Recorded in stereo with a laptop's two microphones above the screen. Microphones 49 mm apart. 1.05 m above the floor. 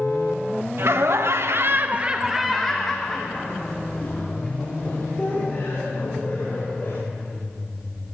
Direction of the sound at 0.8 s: 60° right (ahead or behind).